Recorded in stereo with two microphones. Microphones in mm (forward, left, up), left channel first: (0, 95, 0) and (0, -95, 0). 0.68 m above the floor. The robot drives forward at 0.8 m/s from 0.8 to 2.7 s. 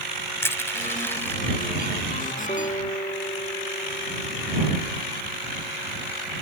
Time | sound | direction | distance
0.4 | crushing | 15° left (ahead or behind) | ?
2.5 | a guitar | 35° left (ahead or behind) | ?